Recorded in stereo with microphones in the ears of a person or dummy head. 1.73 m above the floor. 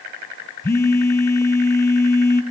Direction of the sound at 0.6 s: 15° left (ahead or behind).